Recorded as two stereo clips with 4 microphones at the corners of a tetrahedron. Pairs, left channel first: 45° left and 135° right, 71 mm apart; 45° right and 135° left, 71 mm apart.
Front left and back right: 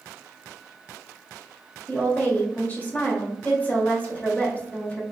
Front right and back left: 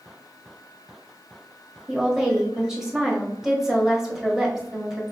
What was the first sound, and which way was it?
A woman speaking, 65° left.